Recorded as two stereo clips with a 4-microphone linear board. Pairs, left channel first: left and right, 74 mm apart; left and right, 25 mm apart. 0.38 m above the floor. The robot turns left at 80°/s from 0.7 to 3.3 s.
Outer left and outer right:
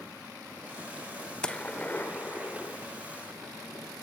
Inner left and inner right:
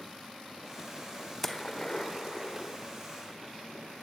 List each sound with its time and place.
1.4 s a gunshot: 10° left (ahead or behind), 1.4 m; by 2.8 s 20° left (ahead or behind), 1.4 m